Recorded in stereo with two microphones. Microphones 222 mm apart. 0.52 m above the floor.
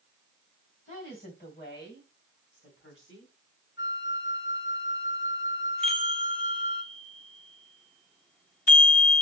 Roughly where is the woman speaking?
Left.